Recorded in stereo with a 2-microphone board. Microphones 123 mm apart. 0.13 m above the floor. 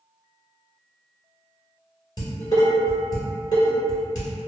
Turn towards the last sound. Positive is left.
turn(degrees=30)  # may be behind; listen again after turning